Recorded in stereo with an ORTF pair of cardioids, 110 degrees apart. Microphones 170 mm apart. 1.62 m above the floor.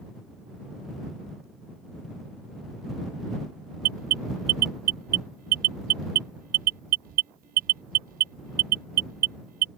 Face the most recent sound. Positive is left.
turn(degrees=-60)